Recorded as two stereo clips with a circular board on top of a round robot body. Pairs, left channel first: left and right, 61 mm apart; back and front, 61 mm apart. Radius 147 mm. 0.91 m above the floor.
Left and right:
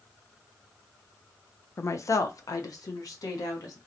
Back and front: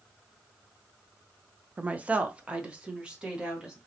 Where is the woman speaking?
60° left, 0.5 m; by 3.8 s 75° left, 1.5 m.